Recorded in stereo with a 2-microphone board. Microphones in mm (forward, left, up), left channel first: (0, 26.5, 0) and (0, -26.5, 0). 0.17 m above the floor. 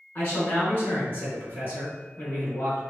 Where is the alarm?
No alarm in this recording.